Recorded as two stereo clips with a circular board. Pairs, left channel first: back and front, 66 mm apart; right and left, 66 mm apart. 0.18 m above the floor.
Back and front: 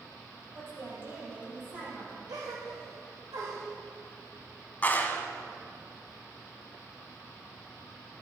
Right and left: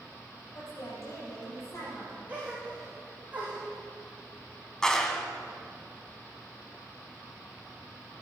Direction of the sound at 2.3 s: 20° left.